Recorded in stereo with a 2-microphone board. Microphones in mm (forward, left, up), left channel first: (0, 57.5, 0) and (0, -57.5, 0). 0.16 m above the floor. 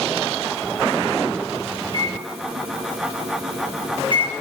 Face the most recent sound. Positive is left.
turn(degrees=-45)  # may be behind; listen again after turning